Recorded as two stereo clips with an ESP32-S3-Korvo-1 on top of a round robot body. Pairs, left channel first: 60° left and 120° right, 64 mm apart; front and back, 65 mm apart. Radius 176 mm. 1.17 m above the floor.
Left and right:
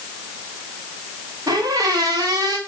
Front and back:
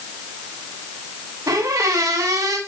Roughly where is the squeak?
Behind right.